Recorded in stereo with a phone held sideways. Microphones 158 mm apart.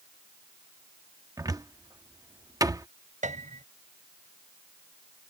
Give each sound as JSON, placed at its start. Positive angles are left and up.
{"t": 1.4, "sound": "a cupboard door", "side_deg": -20}
{"t": 3.2, "sound": "a piano", "side_deg": -50}